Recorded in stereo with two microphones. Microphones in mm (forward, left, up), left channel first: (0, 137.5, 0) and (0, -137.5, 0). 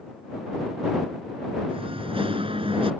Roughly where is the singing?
Centre.